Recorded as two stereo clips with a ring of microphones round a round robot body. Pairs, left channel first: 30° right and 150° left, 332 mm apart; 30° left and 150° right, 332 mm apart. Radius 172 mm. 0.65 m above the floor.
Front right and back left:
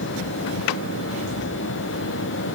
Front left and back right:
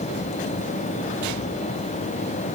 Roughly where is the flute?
I don't hear a flute.